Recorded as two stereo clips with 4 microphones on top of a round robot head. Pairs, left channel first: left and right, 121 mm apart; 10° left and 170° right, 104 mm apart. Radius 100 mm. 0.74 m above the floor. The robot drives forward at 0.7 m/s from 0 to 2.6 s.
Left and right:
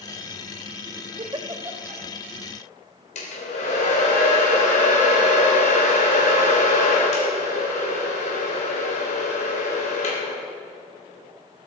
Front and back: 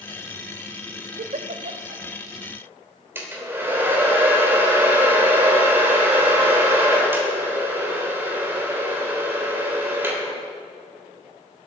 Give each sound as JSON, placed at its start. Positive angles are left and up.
{"t": 1.2, "sound": "a giggle", "azimuth_deg": -150, "distance_m": 0.6}
{"t": 3.1, "sound": "a hair dryer", "azimuth_deg": 120, "distance_m": 3.5}